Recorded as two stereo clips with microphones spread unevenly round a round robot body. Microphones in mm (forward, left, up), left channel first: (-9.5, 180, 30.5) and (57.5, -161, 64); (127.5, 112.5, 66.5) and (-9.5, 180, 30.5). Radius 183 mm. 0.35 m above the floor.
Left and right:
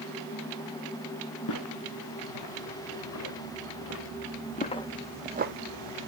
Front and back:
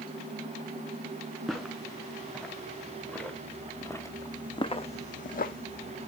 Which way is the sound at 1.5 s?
60° left.